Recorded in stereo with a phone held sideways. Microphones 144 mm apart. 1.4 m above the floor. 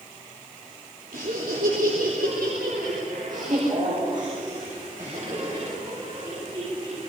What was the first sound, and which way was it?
Laughter, 75° right (ahead or behind).